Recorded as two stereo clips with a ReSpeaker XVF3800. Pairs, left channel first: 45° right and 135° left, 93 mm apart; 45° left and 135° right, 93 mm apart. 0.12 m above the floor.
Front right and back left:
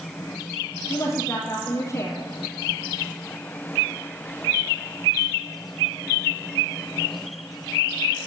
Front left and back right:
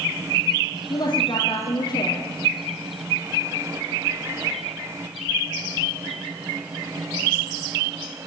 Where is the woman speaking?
5° left, 4 m.